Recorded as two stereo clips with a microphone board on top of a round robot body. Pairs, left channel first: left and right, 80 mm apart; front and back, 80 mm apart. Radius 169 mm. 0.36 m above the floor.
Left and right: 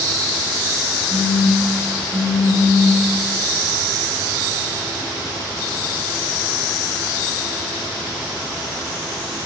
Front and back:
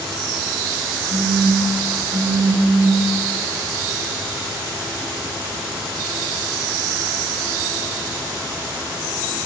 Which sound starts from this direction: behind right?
A phone buzzing, at 1.1 s.